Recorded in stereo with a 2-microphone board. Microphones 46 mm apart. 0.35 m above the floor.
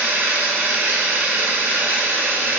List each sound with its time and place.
0.0 s running water: 55° right (ahead or behind), 1.1 m